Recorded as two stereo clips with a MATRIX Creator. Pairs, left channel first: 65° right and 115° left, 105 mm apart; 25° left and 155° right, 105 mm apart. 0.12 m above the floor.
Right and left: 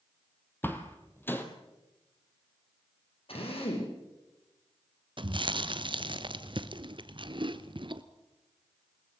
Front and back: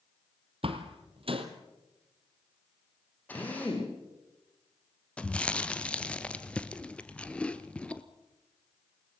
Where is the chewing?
100° left, 1.2 m.